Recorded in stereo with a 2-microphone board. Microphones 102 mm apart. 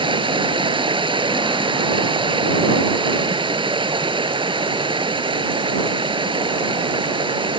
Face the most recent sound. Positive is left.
turn(degrees=-55)  # may be behind; listen again after turning